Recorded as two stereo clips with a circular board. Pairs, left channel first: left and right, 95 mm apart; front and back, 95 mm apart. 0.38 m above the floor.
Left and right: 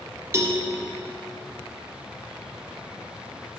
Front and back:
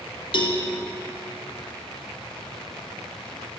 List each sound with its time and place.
0.3 s a cowbell: 30° right, 1.3 m